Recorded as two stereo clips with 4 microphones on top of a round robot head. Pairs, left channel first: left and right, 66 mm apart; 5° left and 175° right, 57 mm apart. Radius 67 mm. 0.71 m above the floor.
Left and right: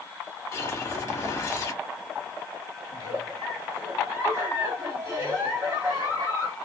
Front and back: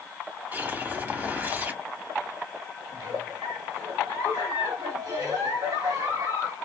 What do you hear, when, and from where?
0.5 s a whoosh: 130° left, 1.1 m
2.9 s a giggle: 140° right, 1.7 m